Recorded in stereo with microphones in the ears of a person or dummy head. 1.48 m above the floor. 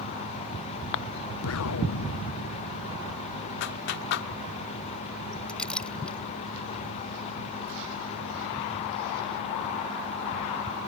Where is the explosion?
85° left.